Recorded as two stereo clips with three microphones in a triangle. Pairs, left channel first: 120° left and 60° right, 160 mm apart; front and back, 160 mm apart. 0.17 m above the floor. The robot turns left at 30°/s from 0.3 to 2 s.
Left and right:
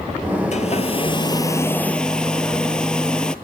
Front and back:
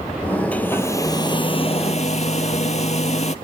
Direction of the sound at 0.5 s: 80° left.